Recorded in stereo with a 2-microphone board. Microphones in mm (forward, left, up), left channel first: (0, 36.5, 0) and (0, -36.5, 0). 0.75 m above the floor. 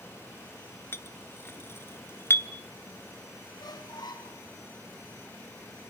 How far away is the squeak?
About 3 m.